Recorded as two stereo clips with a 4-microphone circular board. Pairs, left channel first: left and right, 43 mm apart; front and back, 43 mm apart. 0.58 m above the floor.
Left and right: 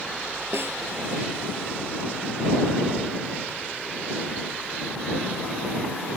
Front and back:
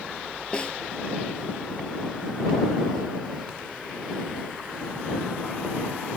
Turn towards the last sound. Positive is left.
turn(degrees=-65)